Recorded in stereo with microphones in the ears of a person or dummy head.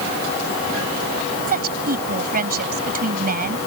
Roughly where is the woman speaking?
Right.